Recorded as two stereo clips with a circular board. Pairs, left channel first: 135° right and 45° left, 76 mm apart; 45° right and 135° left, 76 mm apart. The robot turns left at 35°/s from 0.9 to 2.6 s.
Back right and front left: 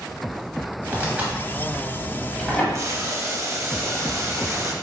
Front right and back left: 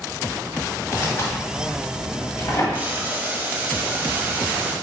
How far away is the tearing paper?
About 1.1 m.